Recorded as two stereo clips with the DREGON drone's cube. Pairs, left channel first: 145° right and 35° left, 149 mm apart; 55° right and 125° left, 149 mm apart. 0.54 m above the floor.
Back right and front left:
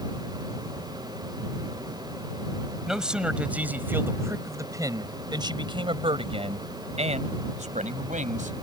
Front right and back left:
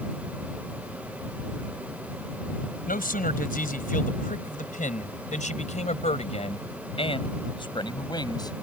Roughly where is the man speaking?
Ahead right.